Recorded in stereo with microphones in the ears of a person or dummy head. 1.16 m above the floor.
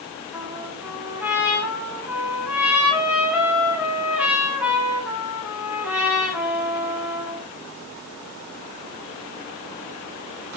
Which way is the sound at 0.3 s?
10° right (ahead or behind).